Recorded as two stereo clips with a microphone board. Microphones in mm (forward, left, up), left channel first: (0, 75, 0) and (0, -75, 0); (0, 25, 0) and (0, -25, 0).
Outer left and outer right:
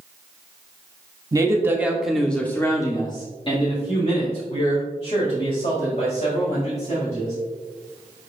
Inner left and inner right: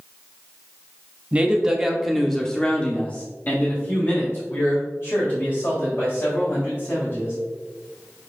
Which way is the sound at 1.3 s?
25° right (ahead or behind).